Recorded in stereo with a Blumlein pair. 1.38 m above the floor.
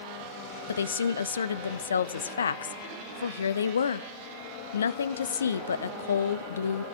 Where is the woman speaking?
65° left, 0.6 m.